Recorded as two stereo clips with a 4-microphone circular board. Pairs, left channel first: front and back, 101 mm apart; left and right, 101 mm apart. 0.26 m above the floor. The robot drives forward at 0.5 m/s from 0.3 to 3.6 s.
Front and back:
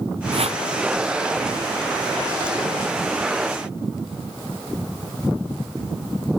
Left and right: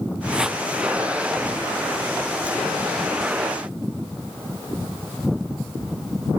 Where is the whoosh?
175° right.